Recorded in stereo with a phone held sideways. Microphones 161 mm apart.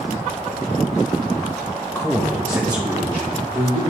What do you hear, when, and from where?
1.9 s a man speaking: 20° left (ahead or behind), 0.6 m; by 3.8 s 40° right (ahead or behind), 2 m